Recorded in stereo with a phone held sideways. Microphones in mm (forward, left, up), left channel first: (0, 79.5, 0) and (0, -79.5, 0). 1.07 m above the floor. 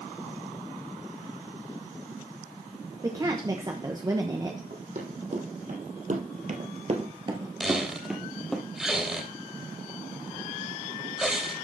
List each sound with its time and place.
3.0 s a woman speaking: 25° right (ahead or behind), 1.0 m
4.7 s running footsteps: 50° right (ahead or behind), 3 m; by 8.6 s 5° left (ahead or behind), 2.0 m
7.6 s a squeak: 5° right (ahead or behind), 2.5 m